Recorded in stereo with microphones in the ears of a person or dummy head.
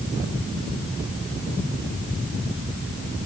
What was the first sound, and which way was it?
Only background noise.